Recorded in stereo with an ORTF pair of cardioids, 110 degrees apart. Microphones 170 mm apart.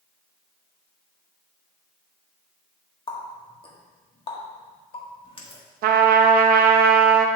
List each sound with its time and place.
3.1 s a running tap: 30° left, 1.4 m
5.8 s a trumpet: 65° right, 0.7 m